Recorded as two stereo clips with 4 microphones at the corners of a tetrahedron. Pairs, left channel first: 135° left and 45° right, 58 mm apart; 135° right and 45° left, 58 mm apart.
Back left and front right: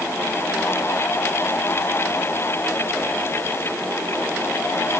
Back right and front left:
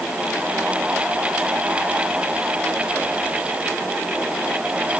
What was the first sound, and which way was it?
Only background noise.